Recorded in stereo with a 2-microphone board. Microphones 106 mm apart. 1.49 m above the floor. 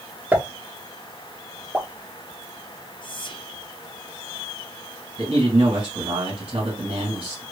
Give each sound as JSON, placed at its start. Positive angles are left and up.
{"t": 0.3, "sound": "a pop", "side_deg": -15, "distance_m": 0.5}
{"t": 3.0, "sound": "whispering", "side_deg": 50, "distance_m": 0.6}
{"t": 5.2, "sound": "a man speaking", "side_deg": -70, "distance_m": 1.7}